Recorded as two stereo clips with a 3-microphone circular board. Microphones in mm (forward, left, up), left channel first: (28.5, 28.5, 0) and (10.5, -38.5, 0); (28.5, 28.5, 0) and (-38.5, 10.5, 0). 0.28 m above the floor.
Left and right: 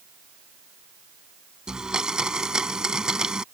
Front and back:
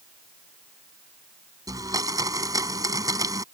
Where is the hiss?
No hiss in this recording.